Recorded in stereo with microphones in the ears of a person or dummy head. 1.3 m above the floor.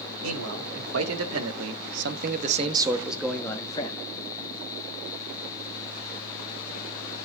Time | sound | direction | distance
0.2 | a man speaking | 75° right (ahead or behind) | 3 m